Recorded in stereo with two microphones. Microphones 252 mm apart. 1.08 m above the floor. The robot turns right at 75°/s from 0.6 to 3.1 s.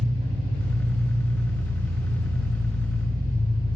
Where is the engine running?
25° right, 4 m; by 3.8 s 165° left, 4 m.